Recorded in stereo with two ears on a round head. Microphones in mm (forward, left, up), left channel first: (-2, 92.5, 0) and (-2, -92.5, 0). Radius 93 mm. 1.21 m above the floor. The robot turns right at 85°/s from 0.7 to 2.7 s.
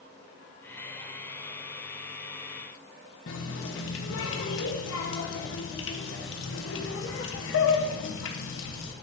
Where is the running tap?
70° left (ahead or behind), 1.0 m.